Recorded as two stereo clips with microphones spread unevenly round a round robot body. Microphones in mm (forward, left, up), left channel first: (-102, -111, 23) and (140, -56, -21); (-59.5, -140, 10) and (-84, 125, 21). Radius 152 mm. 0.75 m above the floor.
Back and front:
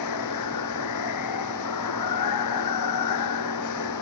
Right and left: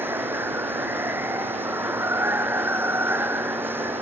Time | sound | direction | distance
0.0 | running water | straight behind | ?